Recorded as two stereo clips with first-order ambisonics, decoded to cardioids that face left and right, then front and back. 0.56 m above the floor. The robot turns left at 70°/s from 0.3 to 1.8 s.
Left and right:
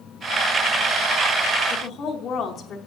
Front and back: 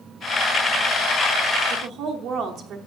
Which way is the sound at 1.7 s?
150° left.